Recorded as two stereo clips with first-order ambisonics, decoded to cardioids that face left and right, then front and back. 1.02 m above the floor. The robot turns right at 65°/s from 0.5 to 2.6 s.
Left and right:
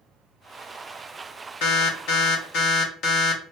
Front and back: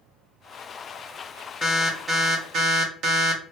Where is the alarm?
70° left, 0.7 m; by 3.4 s 130° left, 0.7 m.